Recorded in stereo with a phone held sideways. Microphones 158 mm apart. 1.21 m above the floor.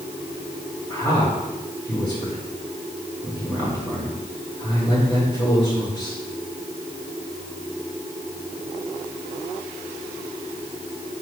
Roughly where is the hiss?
I don't hear a hiss.